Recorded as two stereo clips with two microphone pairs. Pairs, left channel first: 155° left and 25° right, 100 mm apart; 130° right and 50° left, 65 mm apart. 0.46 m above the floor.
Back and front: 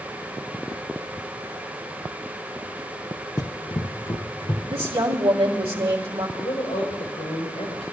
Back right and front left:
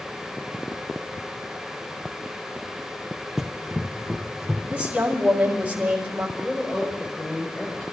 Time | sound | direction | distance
3.4 | running footsteps | 130° left | 0.6 m
4.7 | a woman speaking | 20° right | 2.5 m
6.4 | a woman speaking | 165° left | 5 m